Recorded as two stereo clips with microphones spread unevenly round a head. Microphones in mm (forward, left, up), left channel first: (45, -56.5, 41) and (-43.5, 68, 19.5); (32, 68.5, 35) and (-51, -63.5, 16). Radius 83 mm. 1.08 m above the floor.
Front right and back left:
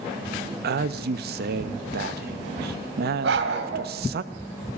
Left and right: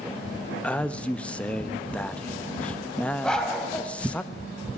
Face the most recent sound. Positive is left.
turn(degrees=140)